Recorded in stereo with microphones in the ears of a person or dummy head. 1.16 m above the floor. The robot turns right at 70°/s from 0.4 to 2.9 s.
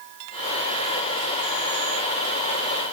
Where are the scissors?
No scissors in this recording.